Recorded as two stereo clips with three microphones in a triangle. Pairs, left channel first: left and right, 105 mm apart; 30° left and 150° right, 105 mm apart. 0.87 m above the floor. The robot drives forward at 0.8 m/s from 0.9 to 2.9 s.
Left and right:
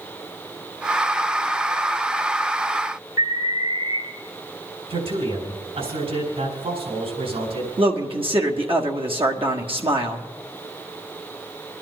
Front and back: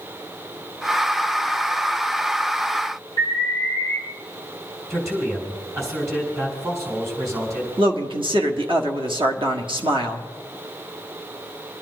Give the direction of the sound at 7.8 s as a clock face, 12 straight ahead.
4 o'clock.